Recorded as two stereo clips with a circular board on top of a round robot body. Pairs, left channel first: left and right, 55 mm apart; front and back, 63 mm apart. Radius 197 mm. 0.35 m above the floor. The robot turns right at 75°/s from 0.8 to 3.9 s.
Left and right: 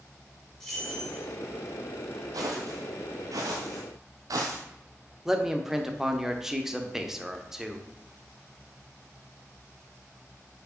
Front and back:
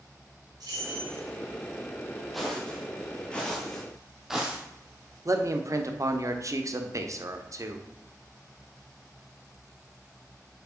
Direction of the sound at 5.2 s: 170° right.